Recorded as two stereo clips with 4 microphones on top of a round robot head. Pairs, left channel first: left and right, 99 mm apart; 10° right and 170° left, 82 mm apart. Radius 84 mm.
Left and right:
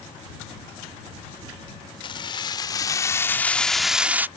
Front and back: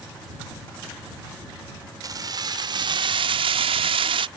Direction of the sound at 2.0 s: 130° left.